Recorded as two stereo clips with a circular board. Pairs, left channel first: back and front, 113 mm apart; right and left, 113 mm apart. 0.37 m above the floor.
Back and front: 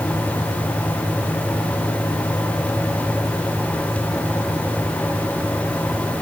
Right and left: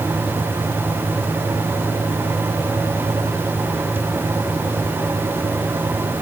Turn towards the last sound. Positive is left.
No sound to turn to.